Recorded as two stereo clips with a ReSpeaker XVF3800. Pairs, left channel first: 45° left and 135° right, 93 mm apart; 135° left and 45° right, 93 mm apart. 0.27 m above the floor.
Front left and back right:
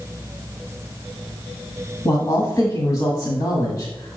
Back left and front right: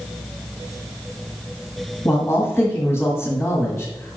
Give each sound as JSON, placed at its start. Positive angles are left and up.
{"t": 2.0, "sound": "a man speaking", "azimuth_deg": 85, "distance_m": 1.8}